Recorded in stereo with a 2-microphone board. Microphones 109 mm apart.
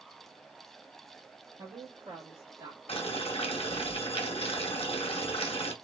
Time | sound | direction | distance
1.6 | a woman speaking | 45° right (ahead or behind) | 0.9 m
2.9 | boiling | 60° left (ahead or behind) | 0.8 m